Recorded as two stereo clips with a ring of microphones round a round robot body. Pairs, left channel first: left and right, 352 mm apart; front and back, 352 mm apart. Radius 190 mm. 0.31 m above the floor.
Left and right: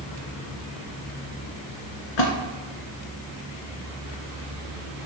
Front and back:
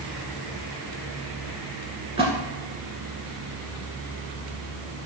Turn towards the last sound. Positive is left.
turn(degrees=105)